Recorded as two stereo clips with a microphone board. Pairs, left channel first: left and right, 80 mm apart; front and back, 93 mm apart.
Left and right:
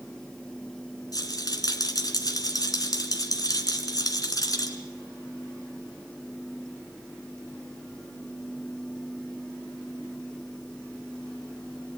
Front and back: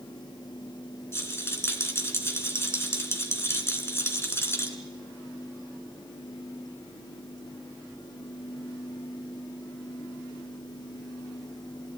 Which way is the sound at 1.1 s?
60° left.